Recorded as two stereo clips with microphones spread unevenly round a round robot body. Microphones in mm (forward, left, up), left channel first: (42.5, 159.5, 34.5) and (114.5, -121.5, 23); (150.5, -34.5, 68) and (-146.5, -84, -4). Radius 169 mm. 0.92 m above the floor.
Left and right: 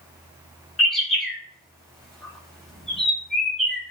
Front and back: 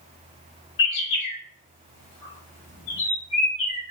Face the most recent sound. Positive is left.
turn(degrees=15)